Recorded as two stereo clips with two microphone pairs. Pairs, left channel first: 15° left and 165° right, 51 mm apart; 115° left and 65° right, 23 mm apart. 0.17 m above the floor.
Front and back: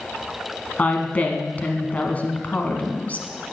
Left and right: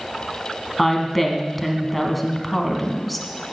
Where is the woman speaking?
30° left, 1.4 m.